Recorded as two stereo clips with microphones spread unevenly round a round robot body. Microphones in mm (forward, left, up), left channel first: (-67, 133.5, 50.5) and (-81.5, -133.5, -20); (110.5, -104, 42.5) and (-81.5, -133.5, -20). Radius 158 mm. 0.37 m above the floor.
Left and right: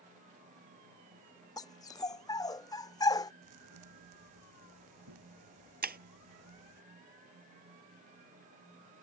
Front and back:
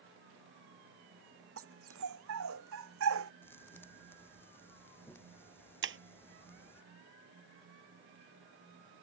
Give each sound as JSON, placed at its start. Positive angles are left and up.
{"t": 1.6, "sound": "a dog barking", "azimuth_deg": 160}
{"t": 3.4, "sound": "a thud", "azimuth_deg": -70}
{"t": 5.8, "sound": "breaking glass", "azimuth_deg": -150}